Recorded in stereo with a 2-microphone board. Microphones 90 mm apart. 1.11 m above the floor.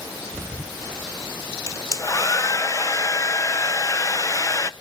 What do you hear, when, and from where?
1.7 s a hair dryer: 35° left (ahead or behind), 0.6 m